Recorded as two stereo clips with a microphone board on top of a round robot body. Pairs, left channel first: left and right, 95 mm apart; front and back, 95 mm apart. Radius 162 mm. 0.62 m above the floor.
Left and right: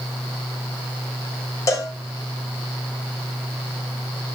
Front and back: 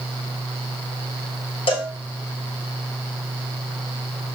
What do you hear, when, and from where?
1.7 s a cowbell: 30° left, 0.6 m